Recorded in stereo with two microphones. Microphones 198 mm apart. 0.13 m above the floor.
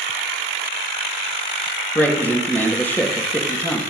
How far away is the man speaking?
About 3.5 m.